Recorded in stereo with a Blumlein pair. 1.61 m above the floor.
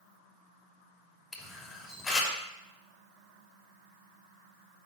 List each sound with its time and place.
1.3 s a camera shutter: 10° left, 3 m